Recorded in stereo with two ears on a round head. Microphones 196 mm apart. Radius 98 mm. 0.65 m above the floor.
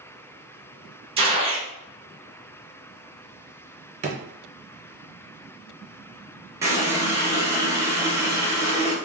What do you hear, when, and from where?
1.2 s a gunshot: 25° right (ahead or behind), 0.7 m
4.0 s a drawer: 30° right (ahead or behind), 0.5 m
6.6 s a running tap: 10° right (ahead or behind), 0.8 m